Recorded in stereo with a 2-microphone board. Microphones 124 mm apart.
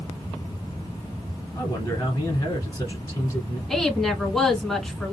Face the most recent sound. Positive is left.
turn(degrees=5)  # may be behind; listen again after turning